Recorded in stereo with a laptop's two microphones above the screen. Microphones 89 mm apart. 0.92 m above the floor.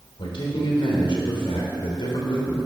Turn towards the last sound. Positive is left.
turn(degrees=70)  # may be behind; listen again after turning